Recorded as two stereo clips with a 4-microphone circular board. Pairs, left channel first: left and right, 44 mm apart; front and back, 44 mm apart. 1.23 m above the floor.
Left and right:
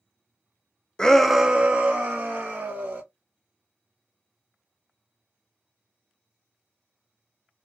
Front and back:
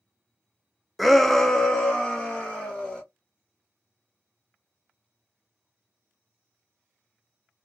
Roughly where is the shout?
Left.